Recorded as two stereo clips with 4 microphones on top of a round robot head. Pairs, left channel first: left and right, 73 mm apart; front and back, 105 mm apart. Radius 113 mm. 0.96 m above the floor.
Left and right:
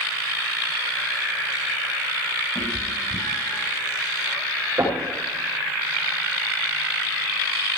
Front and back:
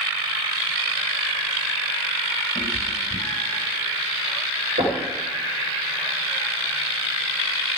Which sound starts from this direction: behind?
Knocking, at 4.8 s.